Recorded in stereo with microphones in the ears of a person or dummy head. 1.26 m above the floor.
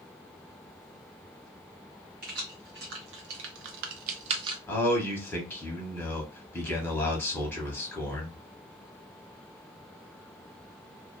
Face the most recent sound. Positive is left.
turn(degrees=10)  # may be behind; listen again after turning